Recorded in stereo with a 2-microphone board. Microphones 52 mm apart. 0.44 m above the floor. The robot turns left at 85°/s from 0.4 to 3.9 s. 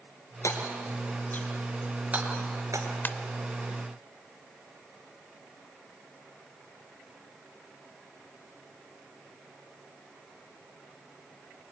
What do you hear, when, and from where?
0.4 s hammering: 65° left (ahead or behind), 3.5 m; by 2.9 s 85° right, 3.5 m
3.0 s a ringtone: 40° left (ahead or behind), 0.7 m; by 3.1 s 30° left (ahead or behind), 0.7 m